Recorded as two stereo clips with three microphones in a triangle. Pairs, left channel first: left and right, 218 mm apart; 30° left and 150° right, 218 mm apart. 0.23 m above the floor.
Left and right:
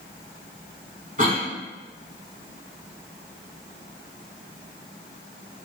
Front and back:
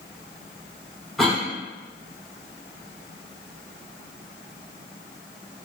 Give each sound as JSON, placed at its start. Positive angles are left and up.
{"t": 1.2, "sound": "a cough", "azimuth_deg": -60, "distance_m": 1.6}